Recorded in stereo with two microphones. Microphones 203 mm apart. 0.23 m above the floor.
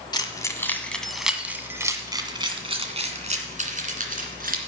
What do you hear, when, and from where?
0.1 s keys jangling: 20° left (ahead or behind), 1.4 m; by 4.6 s 45° right (ahead or behind), 2.5 m